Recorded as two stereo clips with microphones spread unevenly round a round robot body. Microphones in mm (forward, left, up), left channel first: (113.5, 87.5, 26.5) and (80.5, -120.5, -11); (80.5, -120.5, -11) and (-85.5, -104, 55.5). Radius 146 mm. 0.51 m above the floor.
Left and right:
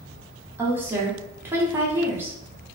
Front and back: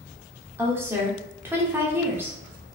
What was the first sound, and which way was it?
A woman speaking, 70° right.